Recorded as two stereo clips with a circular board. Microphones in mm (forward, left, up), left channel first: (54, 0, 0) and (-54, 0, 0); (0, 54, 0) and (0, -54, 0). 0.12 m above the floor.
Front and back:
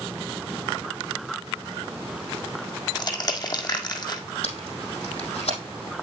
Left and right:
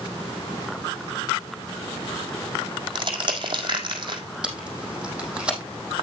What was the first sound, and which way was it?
Crushing, 50° right.